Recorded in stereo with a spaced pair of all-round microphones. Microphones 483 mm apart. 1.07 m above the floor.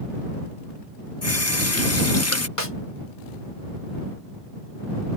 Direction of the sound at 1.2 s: 30° left (ahead or behind).